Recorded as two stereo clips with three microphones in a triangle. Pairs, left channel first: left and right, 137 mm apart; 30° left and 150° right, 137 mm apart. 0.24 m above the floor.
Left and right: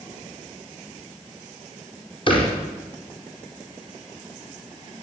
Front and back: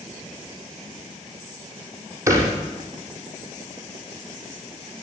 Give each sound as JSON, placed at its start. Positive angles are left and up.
{"t": 2.3, "sound": "a thud", "azimuth_deg": 140, "distance_m": 5.5}